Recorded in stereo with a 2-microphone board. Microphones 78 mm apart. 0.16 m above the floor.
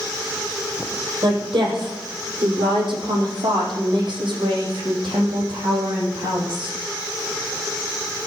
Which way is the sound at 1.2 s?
75° right (ahead or behind).